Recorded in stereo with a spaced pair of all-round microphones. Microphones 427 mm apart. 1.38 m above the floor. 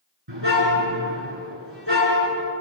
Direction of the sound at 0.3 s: 80° right.